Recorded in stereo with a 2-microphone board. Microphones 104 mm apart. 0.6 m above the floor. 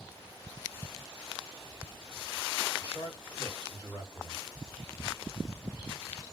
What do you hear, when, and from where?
2.8 s a man speaking: 50° left (ahead or behind), 1.7 m